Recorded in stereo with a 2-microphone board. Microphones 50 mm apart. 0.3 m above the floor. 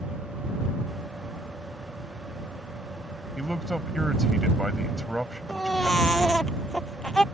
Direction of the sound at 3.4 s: Centre (ahead or behind).